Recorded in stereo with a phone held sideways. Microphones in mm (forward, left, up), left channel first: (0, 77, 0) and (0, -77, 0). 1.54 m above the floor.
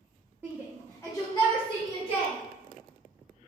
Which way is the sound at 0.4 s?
20° right (ahead or behind).